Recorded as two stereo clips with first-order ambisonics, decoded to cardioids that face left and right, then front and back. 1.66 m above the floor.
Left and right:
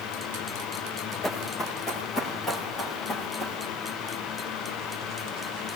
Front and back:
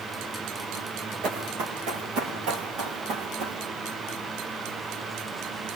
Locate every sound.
1.2 s running footsteps: 160° left, 6.5 m; by 3.6 s 170° left, 6 m